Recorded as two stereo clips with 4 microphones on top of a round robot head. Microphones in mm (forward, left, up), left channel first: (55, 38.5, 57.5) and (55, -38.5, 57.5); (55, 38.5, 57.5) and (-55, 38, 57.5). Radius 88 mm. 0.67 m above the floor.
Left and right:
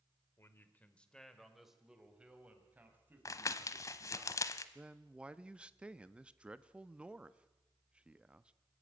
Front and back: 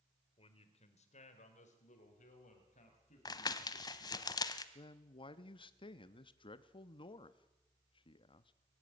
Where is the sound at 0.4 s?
35° left, 2.5 m; by 4.2 s 30° right, 6.5 m.